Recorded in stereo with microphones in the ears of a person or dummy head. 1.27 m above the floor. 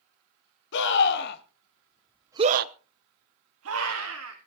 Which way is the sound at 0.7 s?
70° left (ahead or behind).